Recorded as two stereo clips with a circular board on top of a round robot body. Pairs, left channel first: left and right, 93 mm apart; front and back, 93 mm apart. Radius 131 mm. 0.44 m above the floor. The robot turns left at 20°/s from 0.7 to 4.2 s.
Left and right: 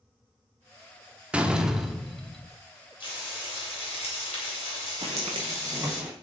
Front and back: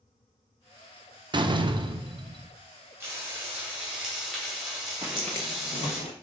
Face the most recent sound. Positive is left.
turn(degrees=-15)